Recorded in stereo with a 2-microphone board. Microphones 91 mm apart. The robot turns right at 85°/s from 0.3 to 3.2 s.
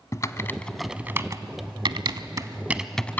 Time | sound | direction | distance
0.1 | typing on a keyboard | 35° left (ahead or behind) | 0.7 m